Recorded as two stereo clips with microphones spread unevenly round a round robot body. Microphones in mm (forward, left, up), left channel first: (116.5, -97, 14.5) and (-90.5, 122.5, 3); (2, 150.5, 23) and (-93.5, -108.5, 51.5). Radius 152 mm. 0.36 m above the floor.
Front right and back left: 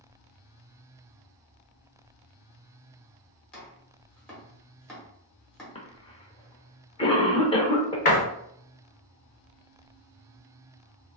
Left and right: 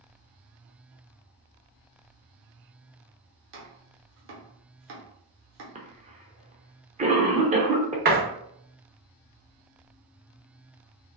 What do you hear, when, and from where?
3.5 s chopping: 135° right, 1.2 m
5.8 s a cough: 90° right, 0.8 m
8.1 s a door slam: 85° right, 0.9 m